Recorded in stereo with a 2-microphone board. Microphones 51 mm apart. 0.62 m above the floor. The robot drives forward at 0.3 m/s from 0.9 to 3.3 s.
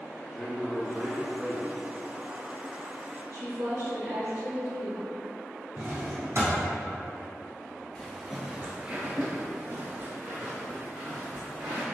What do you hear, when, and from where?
0.3 s a man speaking: 15° left (ahead or behind), 0.7 m
3.3 s a woman speaking: 55° right (ahead or behind), 1.9 m
5.8 s a drawer: 65° right (ahead or behind), 1.0 m
8.0 s footsteps: 15° left (ahead or behind), 0.6 m; by 11.8 s 55° right (ahead or behind), 2 m